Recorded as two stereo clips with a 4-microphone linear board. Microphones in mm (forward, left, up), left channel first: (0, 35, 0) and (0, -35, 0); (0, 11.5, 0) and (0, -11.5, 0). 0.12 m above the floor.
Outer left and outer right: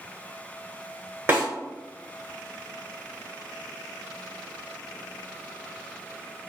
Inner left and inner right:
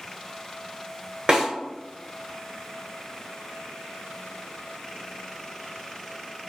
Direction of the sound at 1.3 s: 35° right (ahead or behind).